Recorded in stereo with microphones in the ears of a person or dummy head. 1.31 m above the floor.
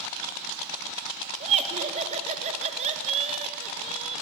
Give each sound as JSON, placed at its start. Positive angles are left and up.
{"t": 1.4, "sound": "laughter", "side_deg": -35, "distance_m": 1.1}